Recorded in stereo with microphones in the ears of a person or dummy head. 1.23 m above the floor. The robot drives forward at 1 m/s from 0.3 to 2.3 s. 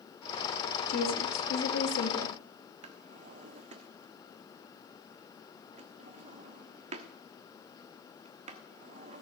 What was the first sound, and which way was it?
A woman speaking, 55° left (ahead or behind).